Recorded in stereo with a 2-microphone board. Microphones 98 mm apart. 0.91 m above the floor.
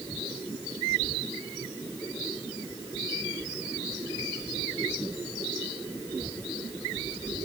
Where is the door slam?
I don't hear a door slam.